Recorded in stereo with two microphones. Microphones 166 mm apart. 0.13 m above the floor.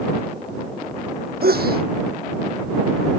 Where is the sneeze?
75° right (ahead or behind).